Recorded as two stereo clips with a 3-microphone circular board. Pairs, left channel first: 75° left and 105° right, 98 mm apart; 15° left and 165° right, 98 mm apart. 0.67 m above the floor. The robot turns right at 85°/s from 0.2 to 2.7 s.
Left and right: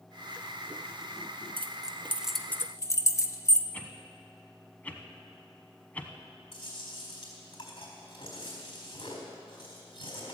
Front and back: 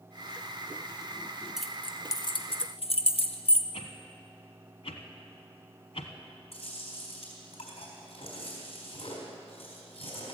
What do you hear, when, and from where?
1.6 s keys jangling: 80° right, 0.7 m; by 3.6 s 15° left, 0.7 m
3.7 s a whoosh: straight ahead, 1.1 m
6.5 s chewing: 35° left, 4 m